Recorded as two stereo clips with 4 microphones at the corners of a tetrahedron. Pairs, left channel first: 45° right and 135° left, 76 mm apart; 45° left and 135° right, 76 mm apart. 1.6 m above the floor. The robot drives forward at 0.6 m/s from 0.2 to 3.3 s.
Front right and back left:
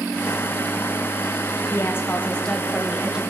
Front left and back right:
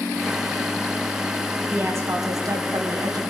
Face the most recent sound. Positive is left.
turn(degrees=-150)